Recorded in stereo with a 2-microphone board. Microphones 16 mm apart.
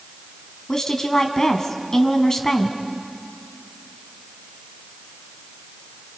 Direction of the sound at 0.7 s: 45° left (ahead or behind).